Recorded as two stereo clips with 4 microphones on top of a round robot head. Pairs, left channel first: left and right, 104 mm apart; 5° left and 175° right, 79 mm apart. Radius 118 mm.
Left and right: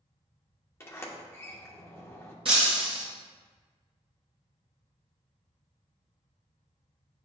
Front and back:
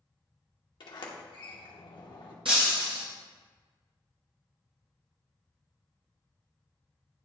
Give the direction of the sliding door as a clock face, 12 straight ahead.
11 o'clock.